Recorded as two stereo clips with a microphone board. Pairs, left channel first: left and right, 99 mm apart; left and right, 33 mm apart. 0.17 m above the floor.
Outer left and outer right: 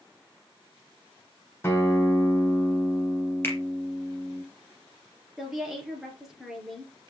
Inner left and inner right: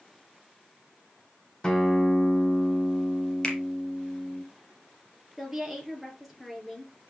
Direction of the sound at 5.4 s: 5° right (ahead or behind).